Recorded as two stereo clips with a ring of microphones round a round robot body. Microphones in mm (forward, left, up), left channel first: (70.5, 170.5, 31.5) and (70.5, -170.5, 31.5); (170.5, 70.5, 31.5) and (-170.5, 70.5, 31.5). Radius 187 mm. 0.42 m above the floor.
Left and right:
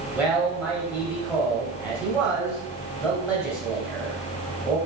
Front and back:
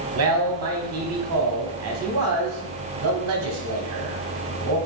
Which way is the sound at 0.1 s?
175° right.